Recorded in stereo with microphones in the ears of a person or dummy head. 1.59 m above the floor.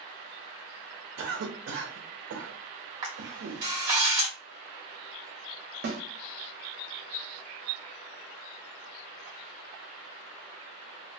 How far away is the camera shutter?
About 0.9 m.